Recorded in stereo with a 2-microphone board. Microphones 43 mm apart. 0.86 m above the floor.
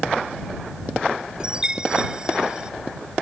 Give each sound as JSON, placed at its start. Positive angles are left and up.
{"t": 1.4, "sound": "a chime", "side_deg": -20}